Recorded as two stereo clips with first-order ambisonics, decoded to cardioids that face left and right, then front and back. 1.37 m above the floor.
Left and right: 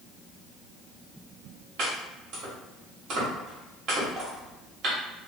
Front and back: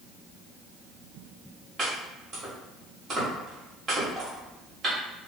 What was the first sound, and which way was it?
Chopping, 120° right.